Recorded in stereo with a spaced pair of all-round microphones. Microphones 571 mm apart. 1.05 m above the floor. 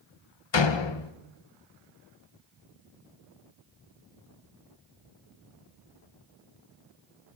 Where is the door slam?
50° left (ahead or behind), 0.6 m.